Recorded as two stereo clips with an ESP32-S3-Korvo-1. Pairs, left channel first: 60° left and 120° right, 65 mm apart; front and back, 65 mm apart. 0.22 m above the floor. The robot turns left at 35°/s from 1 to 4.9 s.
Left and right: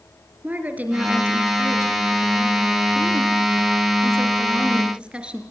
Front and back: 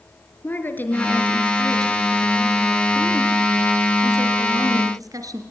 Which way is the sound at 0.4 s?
55° right.